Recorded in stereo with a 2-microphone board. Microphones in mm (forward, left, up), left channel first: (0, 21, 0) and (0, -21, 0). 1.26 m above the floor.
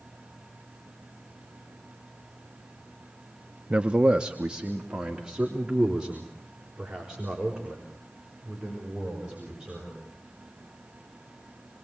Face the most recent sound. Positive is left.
turn(degrees=-20)  # may be behind; listen again after turning